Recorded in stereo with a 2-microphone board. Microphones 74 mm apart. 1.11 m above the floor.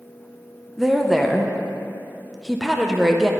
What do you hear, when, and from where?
0.8 s a woman speaking: centre (ahead or behind), 0.6 m